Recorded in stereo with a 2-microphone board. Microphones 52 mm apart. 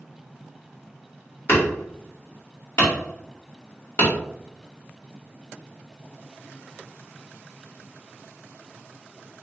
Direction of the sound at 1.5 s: 60° left (ahead or behind).